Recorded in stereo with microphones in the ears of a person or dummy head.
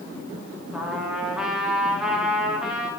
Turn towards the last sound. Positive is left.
turn(degrees=0)  # may be behind; listen again after turning